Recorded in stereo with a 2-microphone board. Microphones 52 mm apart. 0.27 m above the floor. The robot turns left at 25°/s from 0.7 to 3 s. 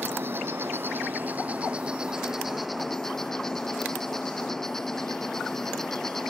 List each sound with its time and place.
0.0 s an insect: 130° right; by 6.3 s 175° left